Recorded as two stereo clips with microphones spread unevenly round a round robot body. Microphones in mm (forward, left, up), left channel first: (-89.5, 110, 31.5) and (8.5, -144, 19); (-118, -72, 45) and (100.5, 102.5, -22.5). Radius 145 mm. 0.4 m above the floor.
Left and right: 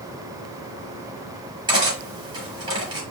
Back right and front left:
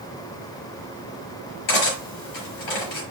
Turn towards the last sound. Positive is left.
turn(degrees=-145)